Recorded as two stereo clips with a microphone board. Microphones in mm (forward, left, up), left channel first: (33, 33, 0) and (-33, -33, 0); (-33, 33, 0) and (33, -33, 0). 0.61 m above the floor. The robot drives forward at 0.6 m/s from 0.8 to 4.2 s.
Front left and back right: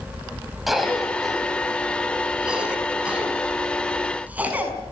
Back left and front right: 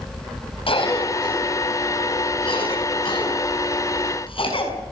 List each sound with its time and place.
0.7 s a cough: 135° left, 4 m; by 4.7 s 150° left, 5.5 m